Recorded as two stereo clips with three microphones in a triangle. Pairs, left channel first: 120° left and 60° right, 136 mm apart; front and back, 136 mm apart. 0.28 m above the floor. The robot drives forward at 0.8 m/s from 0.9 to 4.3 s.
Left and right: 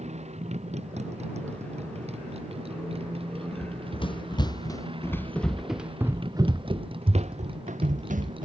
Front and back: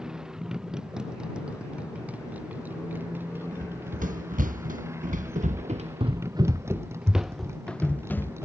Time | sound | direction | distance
0.0 | a motorcycle | 95° right | ?
3.5 | running footsteps | 160° left | ?